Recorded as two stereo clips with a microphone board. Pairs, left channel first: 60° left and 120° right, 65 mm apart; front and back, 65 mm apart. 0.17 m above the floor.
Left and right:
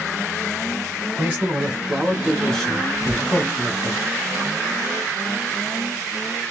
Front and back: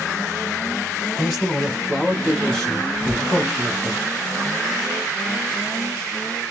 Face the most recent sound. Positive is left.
turn(degrees=50)